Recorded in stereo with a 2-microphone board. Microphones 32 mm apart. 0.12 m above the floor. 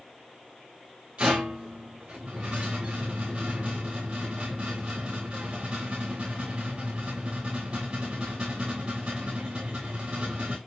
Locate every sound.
1.2 s a rattle: 55° right (ahead or behind), 4 m